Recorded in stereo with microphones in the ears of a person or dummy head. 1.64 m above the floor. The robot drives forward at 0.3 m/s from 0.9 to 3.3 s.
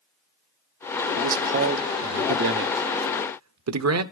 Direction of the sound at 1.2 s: 50° right (ahead or behind).